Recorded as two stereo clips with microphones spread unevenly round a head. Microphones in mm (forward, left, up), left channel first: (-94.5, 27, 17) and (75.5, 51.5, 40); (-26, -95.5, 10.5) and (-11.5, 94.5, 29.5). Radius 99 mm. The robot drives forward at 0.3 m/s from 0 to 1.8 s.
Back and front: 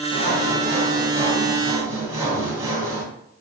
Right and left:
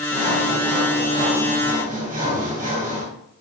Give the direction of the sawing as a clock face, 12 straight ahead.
11 o'clock.